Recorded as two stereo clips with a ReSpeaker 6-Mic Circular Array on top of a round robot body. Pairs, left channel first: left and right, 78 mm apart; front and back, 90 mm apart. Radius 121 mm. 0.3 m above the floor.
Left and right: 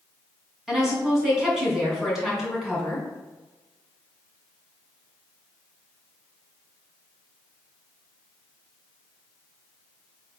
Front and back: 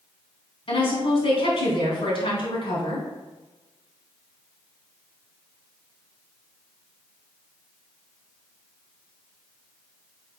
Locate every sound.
0.7 s a woman speaking: 5° right, 3.5 m